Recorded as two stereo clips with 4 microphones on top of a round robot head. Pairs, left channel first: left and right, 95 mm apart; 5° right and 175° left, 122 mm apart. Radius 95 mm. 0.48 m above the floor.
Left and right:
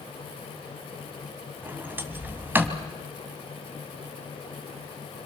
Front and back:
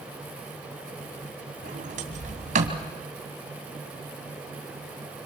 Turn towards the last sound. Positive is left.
turn(degrees=-160)